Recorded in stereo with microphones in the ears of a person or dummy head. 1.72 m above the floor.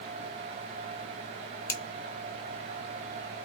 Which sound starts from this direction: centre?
A finger snap, at 1.7 s.